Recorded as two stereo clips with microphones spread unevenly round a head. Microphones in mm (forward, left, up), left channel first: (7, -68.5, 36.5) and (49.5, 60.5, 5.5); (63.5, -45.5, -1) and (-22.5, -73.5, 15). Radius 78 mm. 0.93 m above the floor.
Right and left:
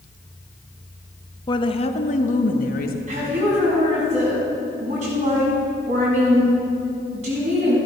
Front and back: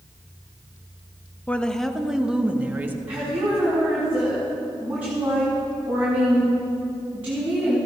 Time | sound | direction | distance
1.5 | a woman speaking | 45° right | 1.1 m
3.1 | a woman speaking | 120° left | 6.5 m